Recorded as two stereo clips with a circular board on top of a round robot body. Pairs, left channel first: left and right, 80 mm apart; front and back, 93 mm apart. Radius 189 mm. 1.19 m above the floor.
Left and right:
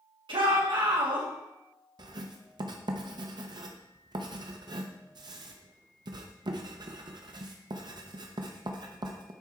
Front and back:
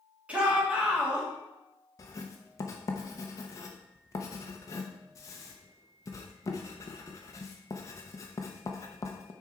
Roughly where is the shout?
Right.